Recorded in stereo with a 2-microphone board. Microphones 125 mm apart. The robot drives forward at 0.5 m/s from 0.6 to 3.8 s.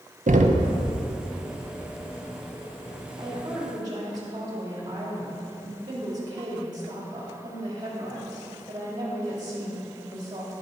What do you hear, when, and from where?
0.3 s knocking: 90° right, 0.7 m; by 0.7 s 85° right, 0.7 m
3.2 s a woman speaking: 35° right (ahead or behind), 2.5 m